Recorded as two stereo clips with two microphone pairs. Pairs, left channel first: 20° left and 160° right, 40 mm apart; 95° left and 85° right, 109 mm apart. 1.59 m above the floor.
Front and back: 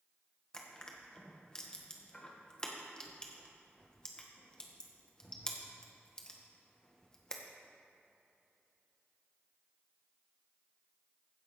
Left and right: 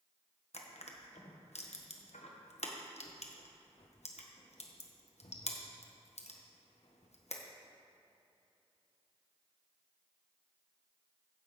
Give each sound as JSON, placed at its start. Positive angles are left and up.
{"t": 0.5, "sound": "crushing", "azimuth_deg": 90, "distance_m": 1.4}